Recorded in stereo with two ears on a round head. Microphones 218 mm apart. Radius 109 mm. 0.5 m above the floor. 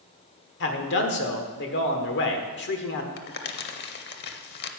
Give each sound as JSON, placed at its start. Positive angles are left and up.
{"t": 0.6, "sound": "a man speaking", "side_deg": 50, "distance_m": 1.3}
{"t": 3.2, "sound": "crumpling", "side_deg": 45, "distance_m": 0.7}